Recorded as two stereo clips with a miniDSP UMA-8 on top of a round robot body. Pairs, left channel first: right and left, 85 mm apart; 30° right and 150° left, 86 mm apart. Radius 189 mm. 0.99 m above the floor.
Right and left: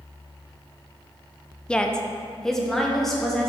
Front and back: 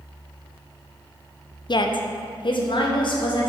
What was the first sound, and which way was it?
A woman speaking, 10° right.